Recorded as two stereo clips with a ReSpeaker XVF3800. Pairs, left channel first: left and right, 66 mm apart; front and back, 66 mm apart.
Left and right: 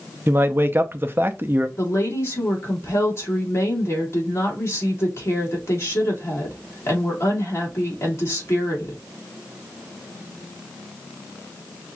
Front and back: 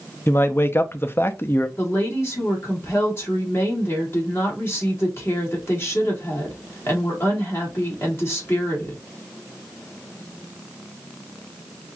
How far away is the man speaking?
About 0.5 m.